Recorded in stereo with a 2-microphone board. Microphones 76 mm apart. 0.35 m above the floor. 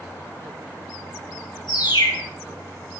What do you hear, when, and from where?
1.7 s a bird: 80° left, 4.5 m